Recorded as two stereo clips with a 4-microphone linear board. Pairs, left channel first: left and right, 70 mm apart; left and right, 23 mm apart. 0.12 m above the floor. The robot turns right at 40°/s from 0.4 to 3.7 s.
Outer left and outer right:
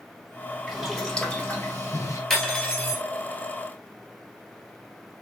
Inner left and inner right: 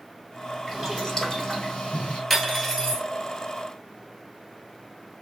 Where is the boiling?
Straight ahead, 1.4 m; by 2.2 s 60° left, 1.4 m.